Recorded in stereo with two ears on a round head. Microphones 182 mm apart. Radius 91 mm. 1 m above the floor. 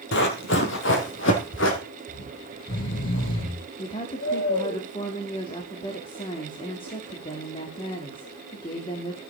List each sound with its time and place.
0.1 s running footsteps: 60° left (ahead or behind), 2.0 m; by 1.8 s 65° left (ahead or behind), 3 m
2.1 s snoring: 75° left (ahead or behind), 5 m
3.8 s a woman speaking: 25° left (ahead or behind), 2 m